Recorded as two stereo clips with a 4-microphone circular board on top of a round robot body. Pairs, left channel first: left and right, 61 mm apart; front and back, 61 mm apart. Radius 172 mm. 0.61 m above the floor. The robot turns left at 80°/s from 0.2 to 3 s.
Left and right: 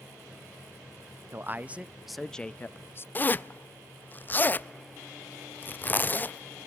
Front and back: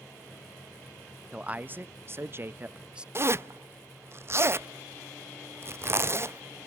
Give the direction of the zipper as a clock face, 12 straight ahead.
7 o'clock.